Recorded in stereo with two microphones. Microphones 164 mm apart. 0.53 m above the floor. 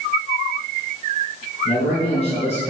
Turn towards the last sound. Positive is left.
turn(degrees=40)  # may be behind; listen again after turning